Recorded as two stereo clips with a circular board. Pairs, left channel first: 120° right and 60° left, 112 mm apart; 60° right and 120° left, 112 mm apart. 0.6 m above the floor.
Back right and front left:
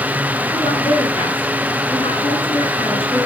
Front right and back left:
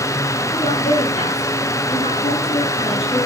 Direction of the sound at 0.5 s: 85° right.